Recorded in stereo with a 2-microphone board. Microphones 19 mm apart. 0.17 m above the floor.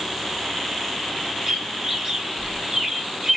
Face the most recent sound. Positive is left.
turn(degrees=-30)  # may be behind; listen again after turning